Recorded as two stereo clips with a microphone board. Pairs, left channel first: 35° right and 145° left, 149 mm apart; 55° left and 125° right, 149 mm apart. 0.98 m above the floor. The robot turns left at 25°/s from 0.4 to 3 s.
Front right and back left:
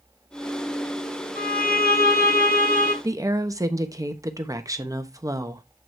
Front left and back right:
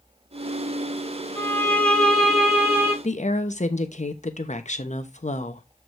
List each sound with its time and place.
1.4 s a violin: 10° right, 6 m; by 2.9 s 50° right, 6 m
3.0 s a woman speaking: 80° left, 1.0 m